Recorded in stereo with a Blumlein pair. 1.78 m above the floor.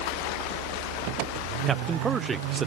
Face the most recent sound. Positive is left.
turn(degrees=-15)